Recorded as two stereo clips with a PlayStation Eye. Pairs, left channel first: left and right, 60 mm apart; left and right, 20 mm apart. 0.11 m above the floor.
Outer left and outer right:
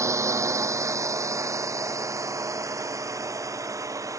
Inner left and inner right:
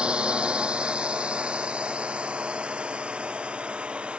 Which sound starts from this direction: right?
A drone, at 0.0 s.